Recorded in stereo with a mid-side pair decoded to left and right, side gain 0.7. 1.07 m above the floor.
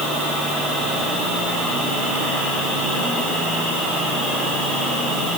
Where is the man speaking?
No man speaking in this recording.